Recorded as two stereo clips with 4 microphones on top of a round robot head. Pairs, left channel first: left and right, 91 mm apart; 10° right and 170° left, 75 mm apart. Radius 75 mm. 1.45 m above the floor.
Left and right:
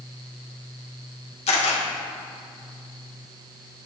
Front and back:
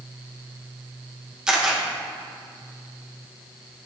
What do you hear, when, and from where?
1.5 s a camera shutter: 90° left, 1.8 m